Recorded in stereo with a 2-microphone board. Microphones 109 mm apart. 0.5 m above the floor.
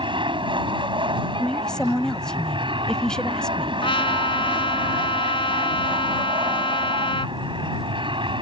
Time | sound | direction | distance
0.0 | an aircraft | 50° right (ahead or behind) | ?
1.4 | a woman speaking | 5° left (ahead or behind) | ?
3.8 | a trumpet | 55° left (ahead or behind) | ?